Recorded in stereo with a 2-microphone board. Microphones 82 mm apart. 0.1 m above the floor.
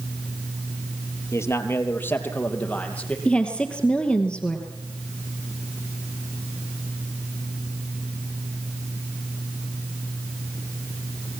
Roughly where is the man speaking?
Left.